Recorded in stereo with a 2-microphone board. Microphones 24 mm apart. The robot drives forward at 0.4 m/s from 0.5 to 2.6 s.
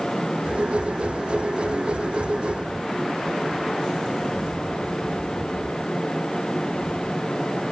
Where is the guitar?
I don't hear a guitar.